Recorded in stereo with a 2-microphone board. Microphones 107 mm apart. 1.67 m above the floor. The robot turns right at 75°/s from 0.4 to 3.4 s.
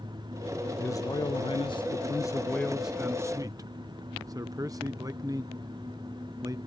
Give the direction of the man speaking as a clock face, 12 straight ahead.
11 o'clock.